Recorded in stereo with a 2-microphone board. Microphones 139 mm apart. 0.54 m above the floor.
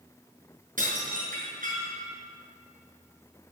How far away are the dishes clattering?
About 5.5 m.